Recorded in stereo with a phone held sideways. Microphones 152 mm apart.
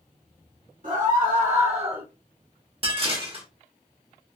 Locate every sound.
0.8 s a scream: 60° right (ahead or behind), 2.0 m; by 2.0 s 35° right (ahead or behind), 1.1 m
2.8 s dishes clattering: 40° right (ahead or behind), 1.1 m